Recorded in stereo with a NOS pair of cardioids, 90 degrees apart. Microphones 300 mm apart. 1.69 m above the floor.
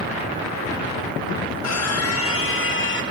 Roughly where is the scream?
Ahead left.